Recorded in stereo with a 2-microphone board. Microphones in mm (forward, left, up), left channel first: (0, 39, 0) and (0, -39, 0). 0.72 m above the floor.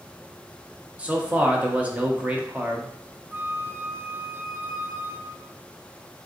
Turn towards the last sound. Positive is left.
turn(degrees=-30)  # may be behind; listen again after turning